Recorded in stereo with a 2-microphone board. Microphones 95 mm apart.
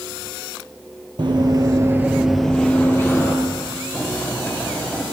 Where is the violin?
I don't hear a violin.